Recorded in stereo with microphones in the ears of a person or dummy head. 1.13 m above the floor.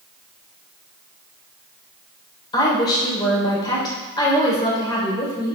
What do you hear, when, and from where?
2.5 s a woman speaking: 30° left (ahead or behind), 3.5 m